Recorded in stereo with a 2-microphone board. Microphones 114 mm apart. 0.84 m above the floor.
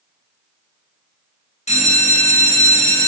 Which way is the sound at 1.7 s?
75° left (ahead or behind).